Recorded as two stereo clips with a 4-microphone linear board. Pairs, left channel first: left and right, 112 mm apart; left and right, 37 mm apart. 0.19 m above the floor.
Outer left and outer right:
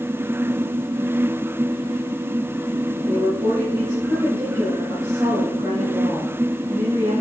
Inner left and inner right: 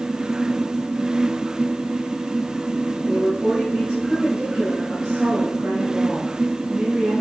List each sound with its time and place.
3.0 s a woman speaking: 30° right (ahead or behind), 4 m